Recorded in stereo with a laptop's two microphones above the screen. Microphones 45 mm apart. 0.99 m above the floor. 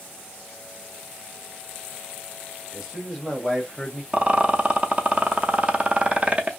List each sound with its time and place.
2.7 s a man speaking: 5° right (ahead or behind), 1.3 m; by 4.0 s 30° left (ahead or behind), 0.5 m
4.1 s a rattle: 30° right (ahead or behind), 0.5 m